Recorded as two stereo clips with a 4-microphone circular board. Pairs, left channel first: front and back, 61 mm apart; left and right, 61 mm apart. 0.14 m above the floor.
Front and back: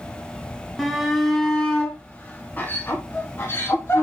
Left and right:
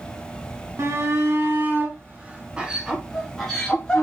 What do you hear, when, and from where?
0.8 s a shout: 90° right, 2 m; by 4.0 s 20° left, 1.9 m